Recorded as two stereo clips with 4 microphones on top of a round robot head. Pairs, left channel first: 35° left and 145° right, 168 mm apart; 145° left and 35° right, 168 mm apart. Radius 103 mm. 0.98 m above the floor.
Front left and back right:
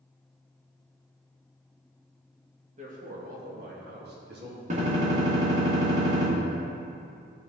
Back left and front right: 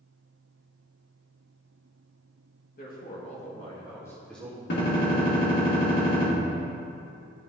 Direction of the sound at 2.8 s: 175° left.